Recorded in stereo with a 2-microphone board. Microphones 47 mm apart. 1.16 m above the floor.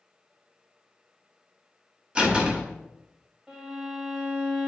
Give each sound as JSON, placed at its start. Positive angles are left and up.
{"t": 2.1, "sound": "a door slam", "side_deg": -20, "distance_m": 1.2}
{"t": 3.5, "sound": "a violin", "side_deg": -15, "distance_m": 1.9}